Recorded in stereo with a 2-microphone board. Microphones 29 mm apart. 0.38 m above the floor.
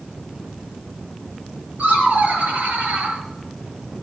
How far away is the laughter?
About 6 m.